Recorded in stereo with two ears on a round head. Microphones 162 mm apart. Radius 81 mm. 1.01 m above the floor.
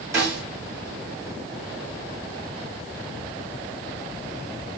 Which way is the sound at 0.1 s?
20° right (ahead or behind).